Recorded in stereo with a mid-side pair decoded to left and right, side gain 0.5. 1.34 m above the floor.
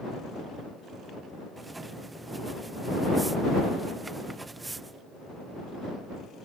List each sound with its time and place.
1.6 s writing: 20° right